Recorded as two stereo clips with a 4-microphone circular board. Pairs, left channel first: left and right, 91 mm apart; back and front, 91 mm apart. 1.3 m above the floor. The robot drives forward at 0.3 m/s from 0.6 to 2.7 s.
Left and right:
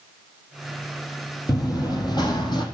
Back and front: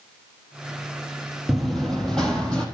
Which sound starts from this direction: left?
Running footsteps, at 1.5 s.